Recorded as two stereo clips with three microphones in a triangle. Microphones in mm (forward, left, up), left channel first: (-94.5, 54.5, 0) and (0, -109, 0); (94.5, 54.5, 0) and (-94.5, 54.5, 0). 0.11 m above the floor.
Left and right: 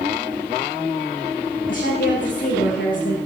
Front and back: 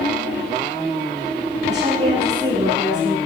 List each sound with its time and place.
1.7 s a woman speaking: 130° left, 7.5 m